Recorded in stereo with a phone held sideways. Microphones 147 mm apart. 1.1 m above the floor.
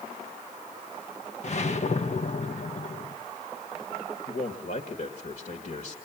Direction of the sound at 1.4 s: 50° left (ahead or behind).